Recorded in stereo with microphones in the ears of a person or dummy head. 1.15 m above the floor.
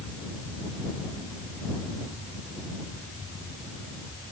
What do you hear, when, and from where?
Only background noise.